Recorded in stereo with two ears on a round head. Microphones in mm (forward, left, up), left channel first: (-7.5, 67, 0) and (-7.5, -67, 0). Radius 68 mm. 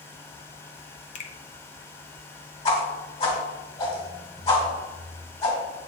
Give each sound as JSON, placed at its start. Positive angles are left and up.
{"t": 1.1, "sound": "a finger snap", "side_deg": 45, "distance_m": 0.7}
{"t": 2.6, "sound": "a whoosh", "side_deg": 40, "distance_m": 1.7}